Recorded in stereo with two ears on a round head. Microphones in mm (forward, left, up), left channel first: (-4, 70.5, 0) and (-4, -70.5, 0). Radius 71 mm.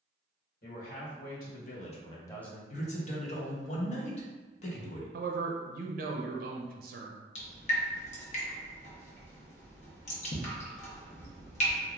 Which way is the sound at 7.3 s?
45° left (ahead or behind).